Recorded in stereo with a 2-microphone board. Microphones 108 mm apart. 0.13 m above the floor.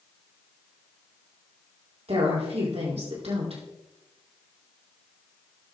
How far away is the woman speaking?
About 5 m.